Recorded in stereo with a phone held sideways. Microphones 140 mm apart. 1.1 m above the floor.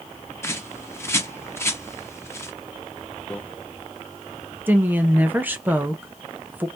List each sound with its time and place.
0.4 s a bird: 20° left (ahead or behind), 0.6 m
3.3 s a microwave: 10° left (ahead or behind), 0.6 m
4.7 s a woman speaking: 15° right (ahead or behind), 0.7 m